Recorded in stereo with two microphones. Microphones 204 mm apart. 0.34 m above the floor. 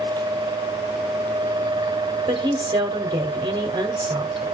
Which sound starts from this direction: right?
A woman speaking, at 2.3 s.